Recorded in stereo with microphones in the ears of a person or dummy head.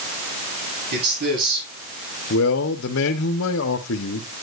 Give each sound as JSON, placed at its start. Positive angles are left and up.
{"t": 0.9, "sound": "a man speaking", "side_deg": -60, "distance_m": 7.5}
{"t": 2.3, "sound": "a man speaking", "side_deg": 80, "distance_m": 1.1}